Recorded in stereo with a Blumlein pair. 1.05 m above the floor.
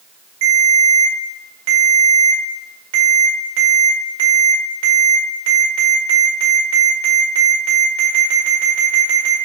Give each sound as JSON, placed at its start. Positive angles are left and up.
{"t": 0.4, "sound": "a ringtone", "azimuth_deg": -55, "distance_m": 1.8}